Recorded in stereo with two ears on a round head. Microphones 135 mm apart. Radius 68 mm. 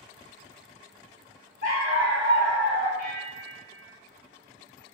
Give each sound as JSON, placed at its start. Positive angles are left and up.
{"t": 1.6, "sound": "a dog barking", "side_deg": 55, "distance_m": 1.9}
{"t": 3.0, "sound": "a bell", "side_deg": 60, "distance_m": 1.0}